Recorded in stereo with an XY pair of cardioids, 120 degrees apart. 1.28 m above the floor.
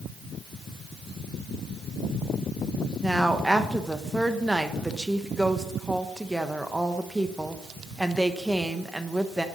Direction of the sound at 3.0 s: 5° right.